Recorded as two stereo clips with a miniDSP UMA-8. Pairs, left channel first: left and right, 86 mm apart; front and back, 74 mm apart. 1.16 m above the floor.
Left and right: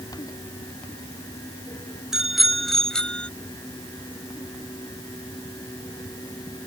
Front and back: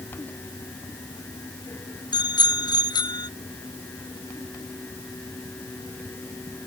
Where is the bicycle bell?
5° right; by 3.3 s 15° left.